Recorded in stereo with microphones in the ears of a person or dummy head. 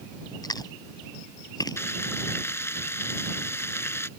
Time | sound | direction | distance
0.4 | chewing | 20° left (ahead or behind) | ?
1.8 | frying | 15° left (ahead or behind) | ?